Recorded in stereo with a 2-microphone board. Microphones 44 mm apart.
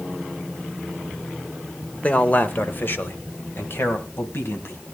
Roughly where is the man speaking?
Left.